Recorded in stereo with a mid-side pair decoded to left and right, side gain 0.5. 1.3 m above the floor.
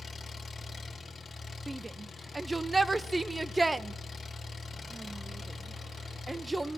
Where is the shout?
10° right, 0.7 m.